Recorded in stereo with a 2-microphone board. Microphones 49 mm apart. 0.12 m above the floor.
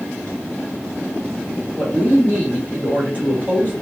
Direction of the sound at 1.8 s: 40° left (ahead or behind).